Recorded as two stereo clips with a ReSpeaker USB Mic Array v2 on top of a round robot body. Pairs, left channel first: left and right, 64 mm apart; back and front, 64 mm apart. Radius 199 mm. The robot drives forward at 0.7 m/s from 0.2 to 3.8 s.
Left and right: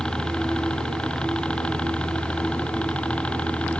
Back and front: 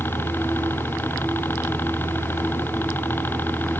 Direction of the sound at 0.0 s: 160° left.